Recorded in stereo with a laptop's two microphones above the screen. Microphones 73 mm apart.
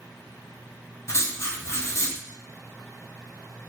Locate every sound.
1.1 s writing: 40° left (ahead or behind), 0.6 m